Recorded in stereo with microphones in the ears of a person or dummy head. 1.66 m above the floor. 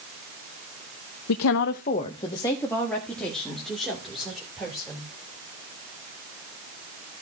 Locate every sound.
1.3 s a woman speaking: 85° left, 0.6 m; by 5.1 s 5° right (ahead or behind), 4 m